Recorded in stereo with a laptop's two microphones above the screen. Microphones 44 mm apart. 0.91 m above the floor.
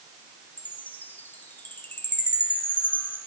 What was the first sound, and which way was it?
A chime, 50° left (ahead or behind).